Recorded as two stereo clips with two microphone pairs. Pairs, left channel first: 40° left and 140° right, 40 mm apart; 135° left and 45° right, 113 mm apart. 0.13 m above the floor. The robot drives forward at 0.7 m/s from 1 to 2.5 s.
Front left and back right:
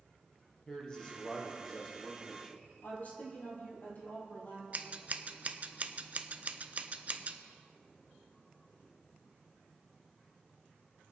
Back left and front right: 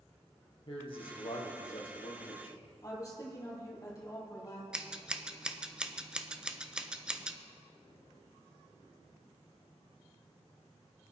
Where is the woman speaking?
80° left, 3.5 m.